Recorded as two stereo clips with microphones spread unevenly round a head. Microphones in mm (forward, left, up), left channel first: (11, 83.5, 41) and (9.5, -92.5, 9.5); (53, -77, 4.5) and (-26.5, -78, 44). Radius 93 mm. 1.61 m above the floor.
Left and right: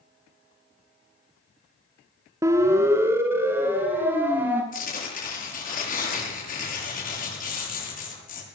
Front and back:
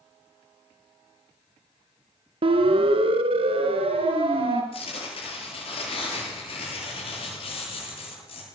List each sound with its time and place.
2.4 s a siren: 165° right, 2 m; by 4.6 s 170° right, 4 m
4.7 s tearing paper: 45° left, 7.5 m